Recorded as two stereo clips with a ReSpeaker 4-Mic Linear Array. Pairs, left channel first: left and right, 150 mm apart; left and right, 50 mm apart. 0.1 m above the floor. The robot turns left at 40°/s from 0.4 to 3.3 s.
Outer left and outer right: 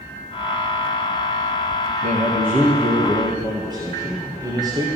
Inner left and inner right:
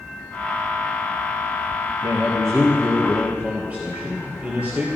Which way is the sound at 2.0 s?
95° right.